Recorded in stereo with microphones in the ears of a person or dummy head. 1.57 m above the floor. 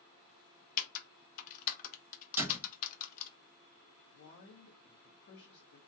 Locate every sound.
0.8 s typing on a keyboard: 50° left (ahead or behind), 0.5 m
2.4 s a door slam: 10° right (ahead or behind), 1.1 m
4.1 s a man speaking: 45° left (ahead or behind), 0.8 m